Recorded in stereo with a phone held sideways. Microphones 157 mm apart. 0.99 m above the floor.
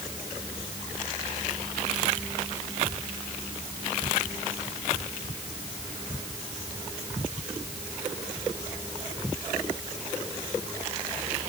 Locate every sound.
Only background noise.